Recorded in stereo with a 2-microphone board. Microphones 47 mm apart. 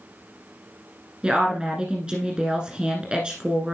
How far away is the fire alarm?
No fire alarm in this recording.